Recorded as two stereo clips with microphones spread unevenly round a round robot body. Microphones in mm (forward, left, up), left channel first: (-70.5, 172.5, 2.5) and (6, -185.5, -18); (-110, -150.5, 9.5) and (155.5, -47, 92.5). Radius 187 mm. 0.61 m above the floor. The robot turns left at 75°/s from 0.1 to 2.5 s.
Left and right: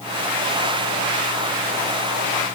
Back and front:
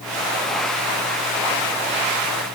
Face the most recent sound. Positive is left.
No sound to turn to.